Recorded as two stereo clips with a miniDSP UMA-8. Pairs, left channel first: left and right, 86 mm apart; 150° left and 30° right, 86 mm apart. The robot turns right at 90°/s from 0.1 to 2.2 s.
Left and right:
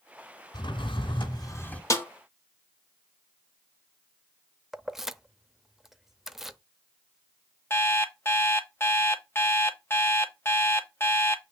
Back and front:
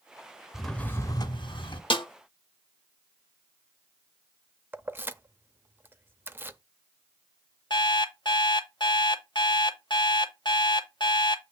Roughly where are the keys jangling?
Ahead.